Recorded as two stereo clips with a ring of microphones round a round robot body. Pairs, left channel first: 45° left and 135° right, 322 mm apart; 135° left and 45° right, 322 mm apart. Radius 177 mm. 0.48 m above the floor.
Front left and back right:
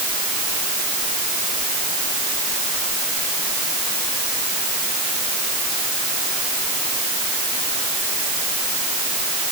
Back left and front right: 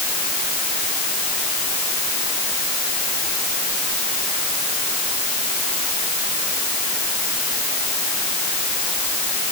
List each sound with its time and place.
Only background noise.